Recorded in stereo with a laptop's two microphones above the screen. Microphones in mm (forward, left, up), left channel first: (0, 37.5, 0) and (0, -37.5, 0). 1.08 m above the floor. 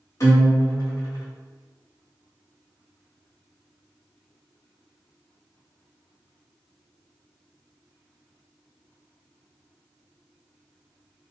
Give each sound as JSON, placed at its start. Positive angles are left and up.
{"t": 0.2, "sound": "a guitar", "side_deg": 50, "distance_m": 1.5}